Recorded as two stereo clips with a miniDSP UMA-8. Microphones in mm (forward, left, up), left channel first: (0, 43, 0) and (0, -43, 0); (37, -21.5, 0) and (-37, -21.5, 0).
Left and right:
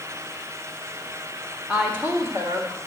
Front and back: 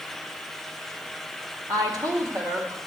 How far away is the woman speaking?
About 1.5 m.